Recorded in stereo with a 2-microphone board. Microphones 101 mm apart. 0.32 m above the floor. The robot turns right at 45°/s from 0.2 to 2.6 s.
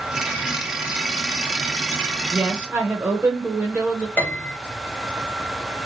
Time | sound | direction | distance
2.3 | a woman speaking | 15° right (ahead or behind) | 0.9 m
4.2 | a piano | 20° left (ahead or behind) | 1.5 m